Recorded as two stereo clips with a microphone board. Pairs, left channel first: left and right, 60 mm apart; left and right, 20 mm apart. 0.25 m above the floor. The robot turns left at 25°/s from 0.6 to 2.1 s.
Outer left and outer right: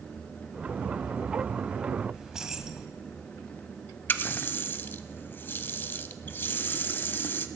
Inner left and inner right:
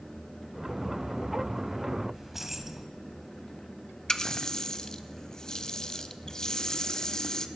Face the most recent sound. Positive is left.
turn(degrees=30)  # may be behind; listen again after turning